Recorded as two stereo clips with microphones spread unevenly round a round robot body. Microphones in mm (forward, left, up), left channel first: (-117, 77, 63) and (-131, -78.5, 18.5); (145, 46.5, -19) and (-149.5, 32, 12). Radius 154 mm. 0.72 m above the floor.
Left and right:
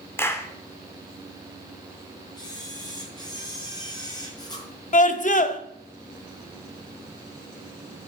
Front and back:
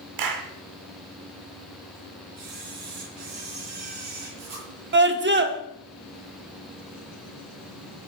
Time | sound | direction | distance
0.2 | a clap | 165° left | 2 m
2.4 | a camera shutter | 150° left | 9.5 m
4.9 | a scream | 130° left | 1.7 m